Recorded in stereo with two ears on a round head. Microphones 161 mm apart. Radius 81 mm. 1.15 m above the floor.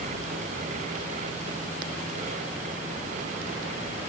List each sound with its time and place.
Only background noise.